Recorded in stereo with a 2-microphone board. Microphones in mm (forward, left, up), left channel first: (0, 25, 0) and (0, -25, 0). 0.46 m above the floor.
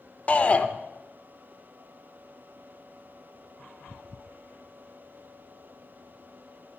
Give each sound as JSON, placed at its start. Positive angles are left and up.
{"t": 0.3, "sound": "a shout", "side_deg": 30, "distance_m": 0.8}